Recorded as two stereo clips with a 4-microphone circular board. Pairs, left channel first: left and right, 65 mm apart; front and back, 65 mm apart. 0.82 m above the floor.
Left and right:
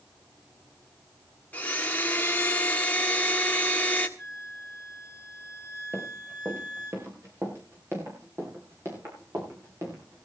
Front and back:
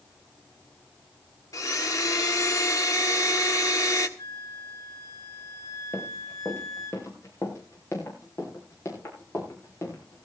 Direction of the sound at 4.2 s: 30° left.